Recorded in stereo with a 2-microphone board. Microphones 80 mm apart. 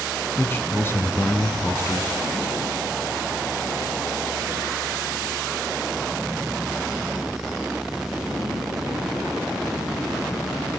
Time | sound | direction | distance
0.4 | a man speaking | 30° left (ahead or behind) | 1.3 m